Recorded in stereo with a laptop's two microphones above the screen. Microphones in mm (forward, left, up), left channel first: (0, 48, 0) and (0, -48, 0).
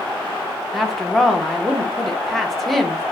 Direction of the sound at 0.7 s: Centre (ahead or behind).